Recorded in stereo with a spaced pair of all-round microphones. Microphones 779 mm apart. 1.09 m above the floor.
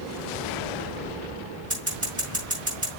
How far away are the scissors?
About 6.5 m.